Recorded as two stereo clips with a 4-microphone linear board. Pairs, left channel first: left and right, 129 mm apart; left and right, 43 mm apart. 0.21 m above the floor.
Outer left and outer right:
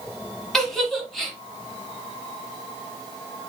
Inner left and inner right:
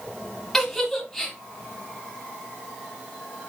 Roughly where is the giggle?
Centre.